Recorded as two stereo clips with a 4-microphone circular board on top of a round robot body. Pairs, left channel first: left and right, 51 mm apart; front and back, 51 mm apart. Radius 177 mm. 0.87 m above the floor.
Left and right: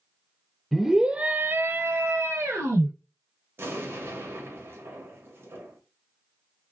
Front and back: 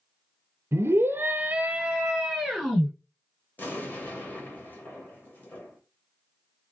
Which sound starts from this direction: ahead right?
An explosion, at 3.6 s.